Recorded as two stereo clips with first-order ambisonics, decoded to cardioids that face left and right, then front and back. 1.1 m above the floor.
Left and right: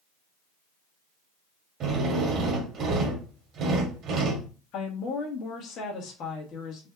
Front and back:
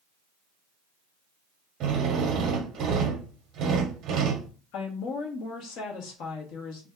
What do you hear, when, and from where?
1.8 s a drill: 135° right, 1.0 m
4.7 s a woman speaking: 40° left, 1.6 m